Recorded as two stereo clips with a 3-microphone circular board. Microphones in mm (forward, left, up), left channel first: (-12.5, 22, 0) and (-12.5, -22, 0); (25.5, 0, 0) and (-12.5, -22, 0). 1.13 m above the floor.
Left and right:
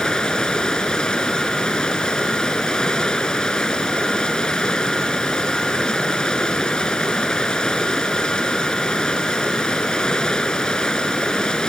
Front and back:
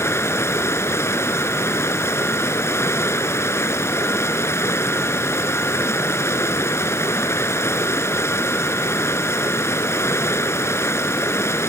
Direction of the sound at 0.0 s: 15° left.